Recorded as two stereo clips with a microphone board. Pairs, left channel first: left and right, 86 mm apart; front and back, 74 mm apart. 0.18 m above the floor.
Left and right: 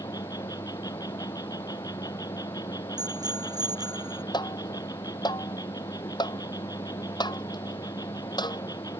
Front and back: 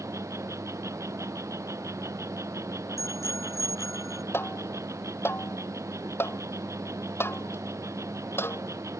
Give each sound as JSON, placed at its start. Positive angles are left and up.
{"t": 0.0, "sound": "an insect", "azimuth_deg": 130}
{"t": 3.0, "sound": "a bicycle bell", "azimuth_deg": -50}
{"t": 4.3, "sound": "tapping", "azimuth_deg": 55}